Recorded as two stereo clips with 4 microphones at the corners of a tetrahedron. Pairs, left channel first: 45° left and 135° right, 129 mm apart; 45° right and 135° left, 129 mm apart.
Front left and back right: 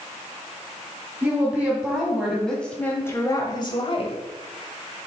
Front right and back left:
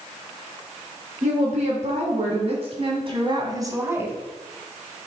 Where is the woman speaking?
150° left, 3 m; by 4.2 s 65° left, 1.7 m.